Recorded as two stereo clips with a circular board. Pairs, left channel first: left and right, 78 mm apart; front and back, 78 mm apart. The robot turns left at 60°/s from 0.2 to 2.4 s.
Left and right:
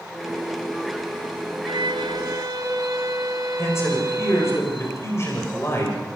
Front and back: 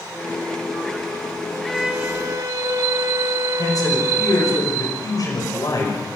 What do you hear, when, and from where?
1.6 s a violin: 90° right, 1.6 m; by 4.6 s 135° right, 1.6 m
3.6 s a man speaking: 35° left, 6 m